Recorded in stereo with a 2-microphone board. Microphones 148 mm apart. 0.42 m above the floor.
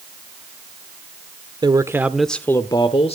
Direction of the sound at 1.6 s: 30° right (ahead or behind).